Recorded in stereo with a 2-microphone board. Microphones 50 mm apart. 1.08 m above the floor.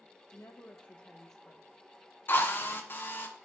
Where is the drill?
45° left (ahead or behind), 1.0 m.